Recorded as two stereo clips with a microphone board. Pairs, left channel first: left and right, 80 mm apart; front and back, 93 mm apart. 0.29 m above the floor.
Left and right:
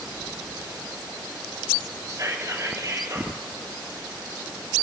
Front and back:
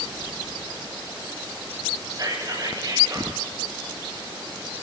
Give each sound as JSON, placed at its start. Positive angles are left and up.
{"t": 2.1, "sound": "whispering", "azimuth_deg": -140, "distance_m": 6.5}